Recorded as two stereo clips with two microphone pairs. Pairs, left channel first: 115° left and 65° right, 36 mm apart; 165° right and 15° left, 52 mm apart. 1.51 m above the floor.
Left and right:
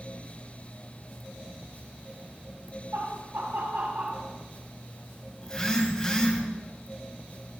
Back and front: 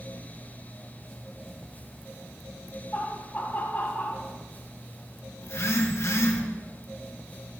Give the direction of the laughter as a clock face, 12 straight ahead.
3 o'clock.